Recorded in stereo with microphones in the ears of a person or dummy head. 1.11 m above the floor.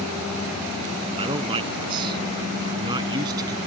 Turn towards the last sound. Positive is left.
turn(degrees=-25)  # may be behind; listen again after turning